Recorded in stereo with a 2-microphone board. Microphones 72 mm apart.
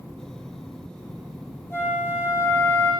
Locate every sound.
1.7 s a flute: 35° left (ahead or behind), 7.5 m